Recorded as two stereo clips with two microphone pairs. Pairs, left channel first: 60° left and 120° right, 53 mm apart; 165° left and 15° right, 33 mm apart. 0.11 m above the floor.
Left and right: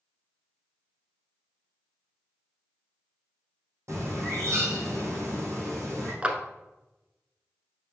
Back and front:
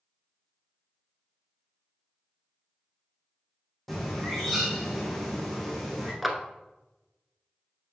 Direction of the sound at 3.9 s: 105° right.